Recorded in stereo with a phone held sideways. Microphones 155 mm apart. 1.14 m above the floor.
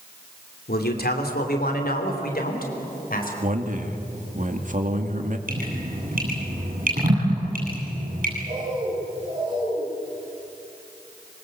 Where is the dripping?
60° right (ahead or behind), 9 m.